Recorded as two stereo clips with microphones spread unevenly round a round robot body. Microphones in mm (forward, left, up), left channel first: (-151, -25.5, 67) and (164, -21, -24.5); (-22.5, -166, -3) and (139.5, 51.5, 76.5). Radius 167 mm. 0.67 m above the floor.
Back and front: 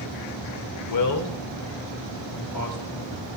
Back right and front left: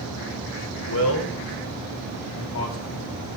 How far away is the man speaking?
About 2.5 m.